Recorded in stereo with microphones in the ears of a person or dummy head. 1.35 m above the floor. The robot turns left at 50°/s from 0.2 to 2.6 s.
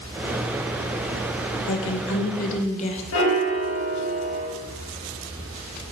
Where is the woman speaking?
85° left, 1.4 m; by 3.0 s 40° left, 1.4 m.